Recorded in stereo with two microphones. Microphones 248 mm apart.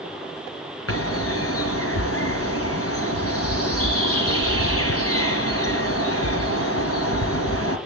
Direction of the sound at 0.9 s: 65° left (ahead or behind).